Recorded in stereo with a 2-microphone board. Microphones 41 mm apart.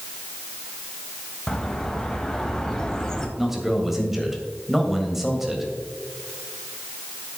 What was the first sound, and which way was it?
A bird, 15° left (ahead or behind).